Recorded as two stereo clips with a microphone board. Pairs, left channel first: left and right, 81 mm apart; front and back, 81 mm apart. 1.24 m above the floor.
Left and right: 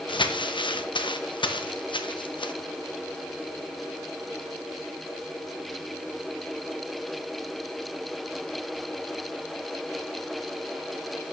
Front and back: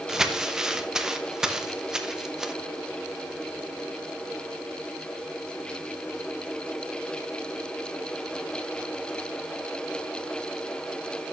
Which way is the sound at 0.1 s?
95° left.